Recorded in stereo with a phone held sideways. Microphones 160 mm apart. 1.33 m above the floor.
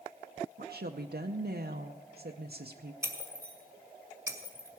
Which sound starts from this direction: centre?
Breaking glass, at 3.0 s.